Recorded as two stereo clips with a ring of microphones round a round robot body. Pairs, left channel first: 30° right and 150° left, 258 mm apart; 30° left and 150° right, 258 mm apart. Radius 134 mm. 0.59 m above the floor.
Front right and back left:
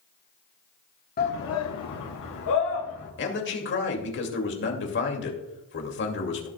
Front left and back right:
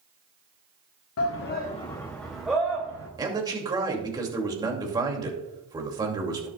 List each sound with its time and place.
1.2 s a shout: 20° left, 1.0 m; by 3.1 s 70° right, 2.5 m
3.2 s a man speaking: 75° right, 2.5 m